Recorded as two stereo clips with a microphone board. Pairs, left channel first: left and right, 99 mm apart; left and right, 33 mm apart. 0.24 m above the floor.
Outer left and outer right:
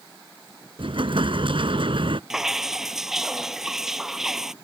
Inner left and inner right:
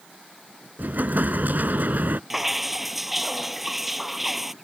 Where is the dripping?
5° right (ahead or behind).